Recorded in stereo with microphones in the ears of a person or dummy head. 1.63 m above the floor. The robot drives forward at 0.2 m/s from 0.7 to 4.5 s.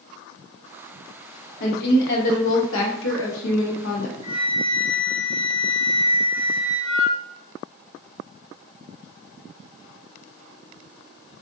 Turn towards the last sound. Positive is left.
turn(degrees=-25)  # may be behind; listen again after turning